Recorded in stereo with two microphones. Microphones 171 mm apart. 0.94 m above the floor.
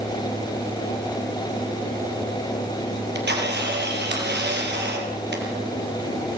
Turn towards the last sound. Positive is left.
turn(degrees=-70)  # may be behind; listen again after turning